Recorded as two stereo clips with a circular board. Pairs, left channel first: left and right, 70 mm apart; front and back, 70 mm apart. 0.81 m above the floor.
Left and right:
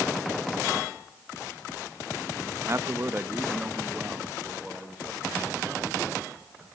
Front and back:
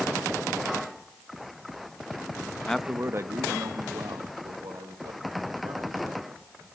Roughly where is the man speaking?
Right.